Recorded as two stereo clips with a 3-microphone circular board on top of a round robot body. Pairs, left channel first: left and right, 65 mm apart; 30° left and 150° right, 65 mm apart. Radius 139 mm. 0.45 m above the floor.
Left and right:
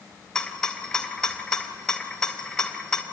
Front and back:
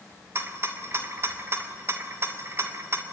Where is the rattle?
165° left, 2.5 m.